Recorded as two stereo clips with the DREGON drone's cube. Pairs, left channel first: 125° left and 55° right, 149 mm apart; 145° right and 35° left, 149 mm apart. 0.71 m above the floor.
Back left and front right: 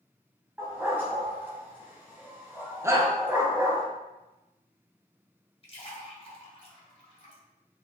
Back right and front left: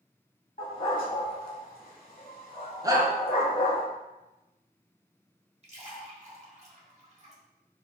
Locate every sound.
0.6 s a dog barking: 135° right, 1.1 m
2.8 s a shout: 5° right, 0.6 m
5.6 s a splash: 75° left, 0.9 m